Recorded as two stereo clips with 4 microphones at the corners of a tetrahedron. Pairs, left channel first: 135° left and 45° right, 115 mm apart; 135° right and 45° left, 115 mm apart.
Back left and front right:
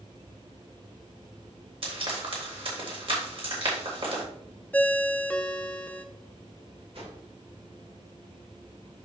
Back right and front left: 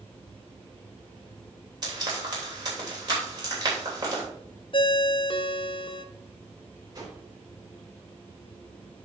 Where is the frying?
5° right, 3 m.